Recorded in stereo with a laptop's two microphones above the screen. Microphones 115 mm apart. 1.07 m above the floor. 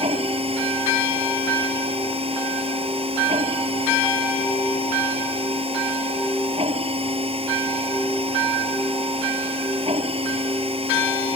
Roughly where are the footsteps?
No footsteps in this recording.